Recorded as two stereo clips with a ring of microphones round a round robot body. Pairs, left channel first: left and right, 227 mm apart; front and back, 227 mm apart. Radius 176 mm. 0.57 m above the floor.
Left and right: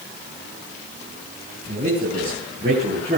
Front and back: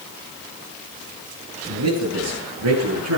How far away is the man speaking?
About 5.5 m.